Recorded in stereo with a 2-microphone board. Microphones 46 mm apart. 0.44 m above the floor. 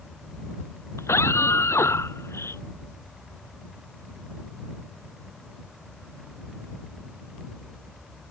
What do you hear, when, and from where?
1.0 s a scream: 80° left; by 2.6 s 75° left (ahead or behind)